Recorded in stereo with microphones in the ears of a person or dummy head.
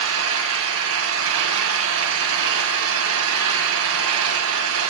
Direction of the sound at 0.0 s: 75° right (ahead or behind).